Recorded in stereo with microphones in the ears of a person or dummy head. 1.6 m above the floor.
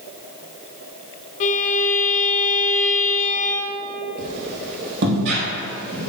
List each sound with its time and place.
1.4 s a violin: 40° left (ahead or behind), 0.6 m
4.2 s a squeak: 60° right (ahead or behind), 3.5 m